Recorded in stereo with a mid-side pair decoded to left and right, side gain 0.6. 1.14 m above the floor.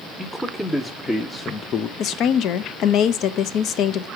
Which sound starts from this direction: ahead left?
A woman speaking, at 2.0 s.